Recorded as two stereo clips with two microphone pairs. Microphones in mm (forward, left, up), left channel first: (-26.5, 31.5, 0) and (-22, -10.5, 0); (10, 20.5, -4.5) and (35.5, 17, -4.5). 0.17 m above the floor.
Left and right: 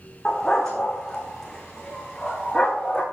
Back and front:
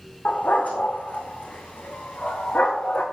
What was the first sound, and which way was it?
A dog barking, 170° left.